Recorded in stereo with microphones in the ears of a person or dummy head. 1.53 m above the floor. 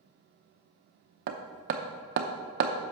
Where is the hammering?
45° right (ahead or behind), 0.7 m.